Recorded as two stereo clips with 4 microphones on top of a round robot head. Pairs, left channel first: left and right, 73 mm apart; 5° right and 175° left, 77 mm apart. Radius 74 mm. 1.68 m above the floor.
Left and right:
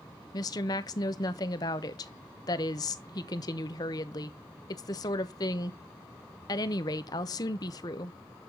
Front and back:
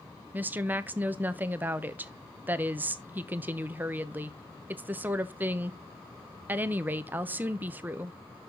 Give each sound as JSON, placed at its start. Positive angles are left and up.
{"t": 0.3, "sound": "a woman speaking", "azimuth_deg": 110, "distance_m": 0.7}